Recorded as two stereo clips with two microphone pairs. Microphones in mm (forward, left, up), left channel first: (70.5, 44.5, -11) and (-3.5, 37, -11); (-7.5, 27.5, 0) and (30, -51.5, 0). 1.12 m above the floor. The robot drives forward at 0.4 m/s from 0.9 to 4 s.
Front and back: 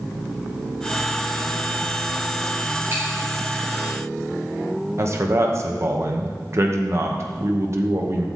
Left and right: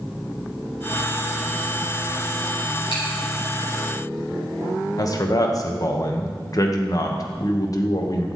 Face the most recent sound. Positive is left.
turn(degrees=145)